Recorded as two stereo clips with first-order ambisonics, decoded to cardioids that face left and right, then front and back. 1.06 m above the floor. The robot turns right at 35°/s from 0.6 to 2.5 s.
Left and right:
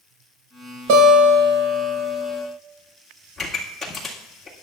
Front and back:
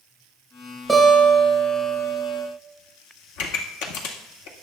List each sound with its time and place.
0.9 s a guitar: 95° right, 4.5 m; by 2.5 s 40° right, 4.5 m
3.4 s a pop: 10° left, 2.0 m